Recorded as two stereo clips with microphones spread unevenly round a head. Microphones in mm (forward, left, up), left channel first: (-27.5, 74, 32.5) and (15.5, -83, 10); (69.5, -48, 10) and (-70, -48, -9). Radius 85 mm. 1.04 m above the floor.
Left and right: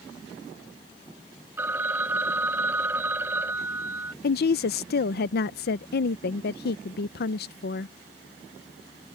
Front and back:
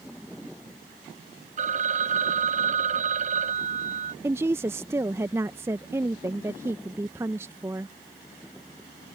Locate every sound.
1.6 s a phone ringing: 155° right
4.2 s a woman speaking: 115° left